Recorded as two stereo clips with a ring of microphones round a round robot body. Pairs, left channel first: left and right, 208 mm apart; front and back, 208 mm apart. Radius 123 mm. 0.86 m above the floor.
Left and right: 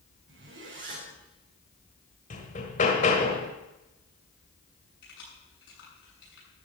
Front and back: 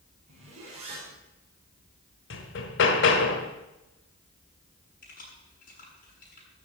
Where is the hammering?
30° left, 1.5 m.